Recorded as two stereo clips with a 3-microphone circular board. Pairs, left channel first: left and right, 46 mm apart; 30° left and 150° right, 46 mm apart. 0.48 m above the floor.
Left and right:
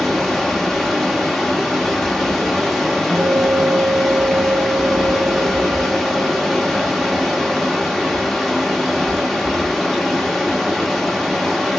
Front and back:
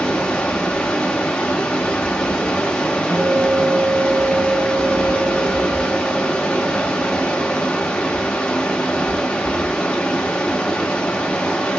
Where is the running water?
5° left, 0.8 m.